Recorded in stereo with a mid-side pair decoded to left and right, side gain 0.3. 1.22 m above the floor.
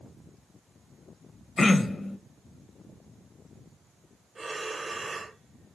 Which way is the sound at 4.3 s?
40° right.